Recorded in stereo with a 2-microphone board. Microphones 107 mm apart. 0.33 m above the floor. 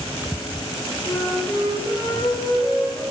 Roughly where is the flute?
Left.